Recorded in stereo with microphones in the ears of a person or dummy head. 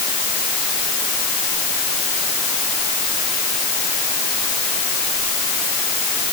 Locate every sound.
Only background noise.